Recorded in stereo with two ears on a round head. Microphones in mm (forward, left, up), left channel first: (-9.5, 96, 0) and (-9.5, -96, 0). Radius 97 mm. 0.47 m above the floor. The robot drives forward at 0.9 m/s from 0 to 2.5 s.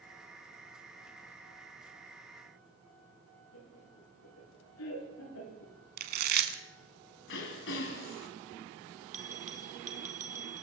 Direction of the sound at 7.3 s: 65° left (ahead or behind).